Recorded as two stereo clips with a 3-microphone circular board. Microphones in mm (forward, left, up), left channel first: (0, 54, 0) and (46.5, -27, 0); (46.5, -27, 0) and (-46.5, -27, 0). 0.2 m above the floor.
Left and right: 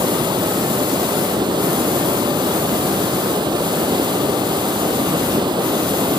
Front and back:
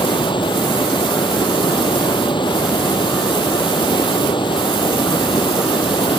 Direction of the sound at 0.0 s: 25° right.